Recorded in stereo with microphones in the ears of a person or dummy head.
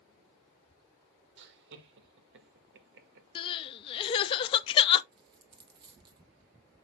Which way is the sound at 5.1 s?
30° right (ahead or behind).